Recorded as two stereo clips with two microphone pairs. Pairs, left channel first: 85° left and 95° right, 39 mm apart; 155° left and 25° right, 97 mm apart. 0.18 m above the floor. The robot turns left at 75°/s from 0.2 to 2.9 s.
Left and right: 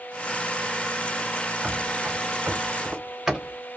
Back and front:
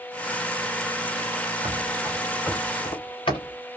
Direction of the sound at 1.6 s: 50° right.